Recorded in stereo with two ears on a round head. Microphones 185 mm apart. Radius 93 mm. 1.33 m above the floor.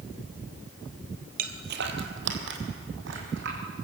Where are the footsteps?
45° right (ahead or behind), 1.8 m; by 3.6 s 60° right (ahead or behind), 4.5 m.